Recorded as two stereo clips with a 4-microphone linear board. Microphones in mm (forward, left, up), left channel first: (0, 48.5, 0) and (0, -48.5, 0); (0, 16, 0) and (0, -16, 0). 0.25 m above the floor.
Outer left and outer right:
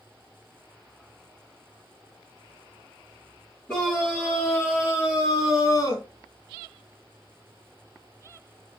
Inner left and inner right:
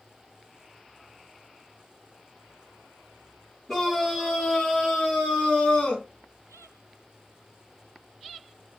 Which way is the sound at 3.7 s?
15° left (ahead or behind).